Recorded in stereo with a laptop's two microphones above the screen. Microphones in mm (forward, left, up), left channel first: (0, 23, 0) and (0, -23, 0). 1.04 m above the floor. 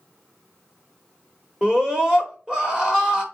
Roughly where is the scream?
Centre.